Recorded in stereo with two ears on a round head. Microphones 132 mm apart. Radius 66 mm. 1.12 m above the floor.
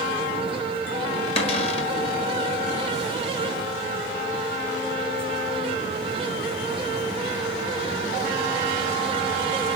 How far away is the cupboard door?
About 1.6 m.